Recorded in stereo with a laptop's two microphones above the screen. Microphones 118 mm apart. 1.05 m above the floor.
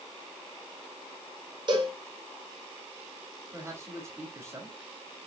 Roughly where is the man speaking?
Right.